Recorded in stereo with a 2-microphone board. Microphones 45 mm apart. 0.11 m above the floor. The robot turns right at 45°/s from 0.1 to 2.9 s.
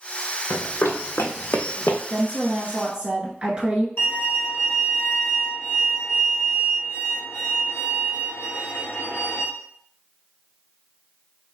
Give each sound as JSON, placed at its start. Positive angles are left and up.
{"t": 0.5, "sound": "running footsteps", "side_deg": 85, "distance_m": 1.1}
{"t": 2.1, "sound": "a woman speaking", "azimuth_deg": -170, "distance_m": 1.3}
{"t": 4.0, "sound": "a violin", "side_deg": 70, "distance_m": 1.2}